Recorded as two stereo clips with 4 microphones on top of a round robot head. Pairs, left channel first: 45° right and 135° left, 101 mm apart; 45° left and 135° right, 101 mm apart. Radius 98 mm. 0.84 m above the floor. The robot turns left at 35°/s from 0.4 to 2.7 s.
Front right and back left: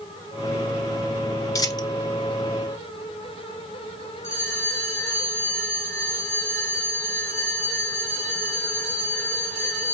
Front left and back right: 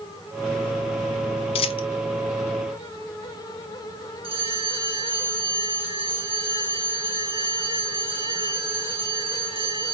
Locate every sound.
1.6 s a dropped coin: 15° left, 0.6 m; by 1.9 s 5° left, 0.6 m
4.2 s a bell: 110° right, 2 m